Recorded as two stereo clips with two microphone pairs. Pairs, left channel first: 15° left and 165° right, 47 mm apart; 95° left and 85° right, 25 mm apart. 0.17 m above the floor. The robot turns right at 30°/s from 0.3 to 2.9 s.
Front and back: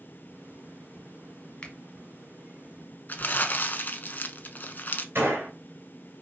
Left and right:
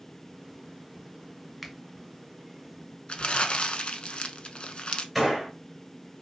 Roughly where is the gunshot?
Behind.